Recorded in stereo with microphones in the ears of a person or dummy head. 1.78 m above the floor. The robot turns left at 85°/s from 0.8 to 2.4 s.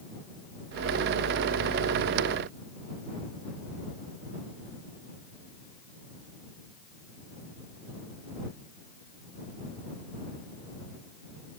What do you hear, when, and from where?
Only background noise.